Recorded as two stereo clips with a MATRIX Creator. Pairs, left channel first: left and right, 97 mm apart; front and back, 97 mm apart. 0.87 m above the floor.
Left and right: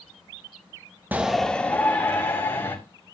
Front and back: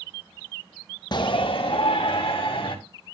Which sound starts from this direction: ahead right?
A shout, at 1.1 s.